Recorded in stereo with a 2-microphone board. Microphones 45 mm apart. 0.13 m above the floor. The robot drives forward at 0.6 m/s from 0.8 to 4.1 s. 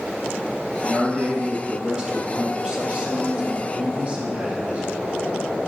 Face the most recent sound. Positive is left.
turn(degrees=-25)  # may be behind; listen again after turning